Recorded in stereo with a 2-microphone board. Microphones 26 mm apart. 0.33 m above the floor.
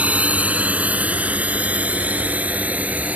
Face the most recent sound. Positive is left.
turn(degrees=-75)  # may be behind; listen again after turning